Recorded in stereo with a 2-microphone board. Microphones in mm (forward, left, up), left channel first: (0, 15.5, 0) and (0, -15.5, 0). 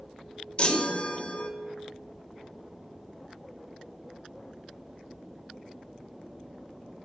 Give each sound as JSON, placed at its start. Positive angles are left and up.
{"t": 0.6, "sound": "a chime", "side_deg": 35, "distance_m": 1.0}